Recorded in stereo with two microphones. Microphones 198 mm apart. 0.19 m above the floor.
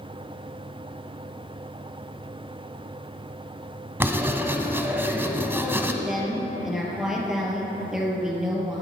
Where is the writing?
10° right (ahead or behind), 1.1 m.